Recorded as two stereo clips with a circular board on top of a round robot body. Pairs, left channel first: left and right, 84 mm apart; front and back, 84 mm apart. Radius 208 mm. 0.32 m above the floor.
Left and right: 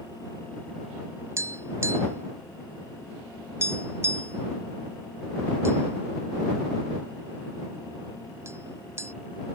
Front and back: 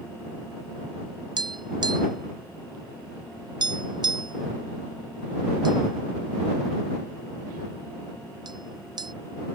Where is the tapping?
150° right.